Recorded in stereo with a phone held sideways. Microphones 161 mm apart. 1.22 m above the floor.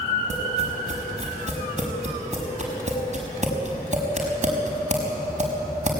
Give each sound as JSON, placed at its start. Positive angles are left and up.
{"t": 0.3, "sound": "tapping", "side_deg": -45, "distance_m": 5.5}